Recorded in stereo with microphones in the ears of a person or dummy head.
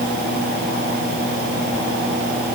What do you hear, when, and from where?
Only background noise.